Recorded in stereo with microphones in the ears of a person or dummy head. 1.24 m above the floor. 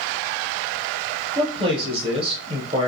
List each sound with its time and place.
1.4 s a man speaking: 30° right (ahead or behind), 0.9 m